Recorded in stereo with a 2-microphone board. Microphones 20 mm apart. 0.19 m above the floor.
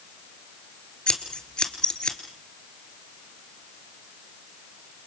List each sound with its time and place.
1.1 s scissors: 45° left (ahead or behind), 2.5 m